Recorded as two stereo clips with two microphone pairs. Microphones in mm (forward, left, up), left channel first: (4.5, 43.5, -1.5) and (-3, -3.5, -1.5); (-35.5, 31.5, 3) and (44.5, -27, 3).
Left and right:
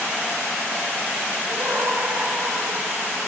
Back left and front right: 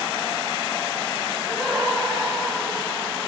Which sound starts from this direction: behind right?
Laughter, at 1.5 s.